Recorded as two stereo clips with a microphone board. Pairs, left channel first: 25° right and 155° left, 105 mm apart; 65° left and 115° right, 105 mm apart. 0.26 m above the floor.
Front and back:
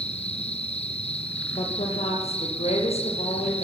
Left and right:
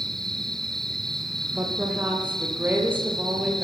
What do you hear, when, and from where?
0.0 s an insect: 20° right, 3 m
1.5 s a woman speaking: 40° right, 8 m